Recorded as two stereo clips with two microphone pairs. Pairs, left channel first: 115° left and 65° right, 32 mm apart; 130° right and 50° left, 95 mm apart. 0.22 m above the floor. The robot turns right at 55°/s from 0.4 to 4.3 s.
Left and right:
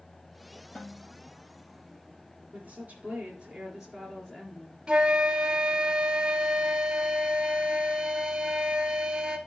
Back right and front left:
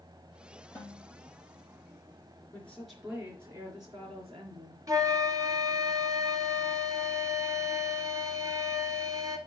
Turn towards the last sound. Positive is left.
turn(degrees=-5)